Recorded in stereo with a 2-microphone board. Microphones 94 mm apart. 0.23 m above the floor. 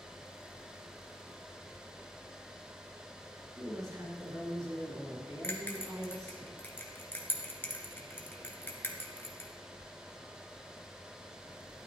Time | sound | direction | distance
3.5 | a woman speaking | 35° right (ahead or behind) | 4.5 m
5.4 | a bell | 25° left (ahead or behind) | 1.8 m